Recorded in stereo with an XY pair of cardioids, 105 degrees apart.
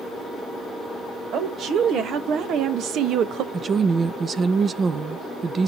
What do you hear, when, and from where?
1.3 s a woman speaking: 65° right, 1.9 m; by 3.4 s 80° right, 0.8 m
3.5 s a woman speaking: 40° right, 0.7 m